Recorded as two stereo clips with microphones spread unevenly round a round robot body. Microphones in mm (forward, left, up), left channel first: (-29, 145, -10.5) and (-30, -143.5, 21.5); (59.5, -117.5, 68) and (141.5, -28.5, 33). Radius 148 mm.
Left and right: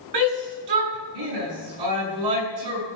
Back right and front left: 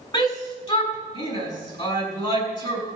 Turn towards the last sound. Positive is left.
turn(degrees=-80)